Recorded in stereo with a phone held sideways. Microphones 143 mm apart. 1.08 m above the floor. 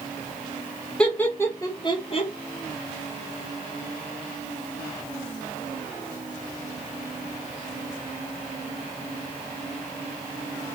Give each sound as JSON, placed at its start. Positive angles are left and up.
{"t": 1.0, "sound": "laughter", "side_deg": 5, "distance_m": 1.4}